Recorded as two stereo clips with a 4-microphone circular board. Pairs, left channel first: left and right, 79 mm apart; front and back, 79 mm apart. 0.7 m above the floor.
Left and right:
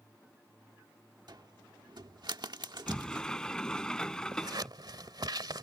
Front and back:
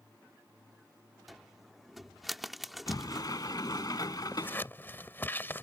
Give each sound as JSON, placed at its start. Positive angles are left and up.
{"t": 1.3, "sound": "a cupboard door", "azimuth_deg": -90}
{"t": 2.9, "sound": "a sliding door", "azimuth_deg": 10}
{"t": 4.3, "sound": "scissors", "azimuth_deg": -60}